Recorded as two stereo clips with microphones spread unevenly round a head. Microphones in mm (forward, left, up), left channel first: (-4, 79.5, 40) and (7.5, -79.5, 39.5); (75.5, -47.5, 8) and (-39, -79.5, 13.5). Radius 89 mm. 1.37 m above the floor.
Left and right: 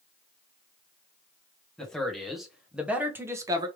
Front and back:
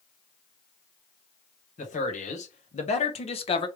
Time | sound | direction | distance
1.8 | a man speaking | 10° left | 1.8 m